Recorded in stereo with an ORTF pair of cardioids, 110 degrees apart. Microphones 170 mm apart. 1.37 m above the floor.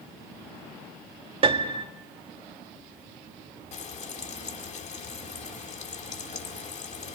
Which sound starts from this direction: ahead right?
A piano, at 1.4 s.